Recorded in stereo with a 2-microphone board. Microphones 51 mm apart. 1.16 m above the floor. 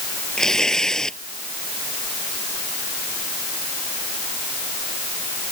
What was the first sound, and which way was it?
Tearing paper, 5° left (ahead or behind).